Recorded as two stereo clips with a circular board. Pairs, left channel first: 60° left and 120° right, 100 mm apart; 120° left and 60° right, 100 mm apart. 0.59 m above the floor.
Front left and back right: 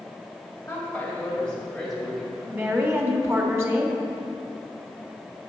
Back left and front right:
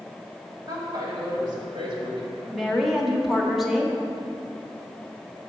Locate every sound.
0.7 s a woman speaking: 10° right, 2.5 m; by 2.8 s 45° right, 2 m
2.5 s a woman speaking: 145° right, 1.1 m